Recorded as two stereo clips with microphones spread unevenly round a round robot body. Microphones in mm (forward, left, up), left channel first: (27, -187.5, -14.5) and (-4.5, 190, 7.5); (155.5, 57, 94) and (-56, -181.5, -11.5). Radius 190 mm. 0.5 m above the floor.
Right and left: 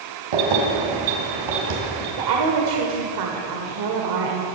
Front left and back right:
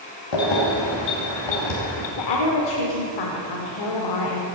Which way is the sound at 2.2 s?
70° left.